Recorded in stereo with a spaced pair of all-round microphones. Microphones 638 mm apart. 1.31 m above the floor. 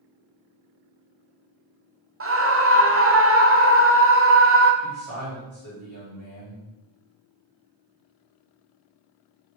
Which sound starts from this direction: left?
A man speaking, at 4.8 s.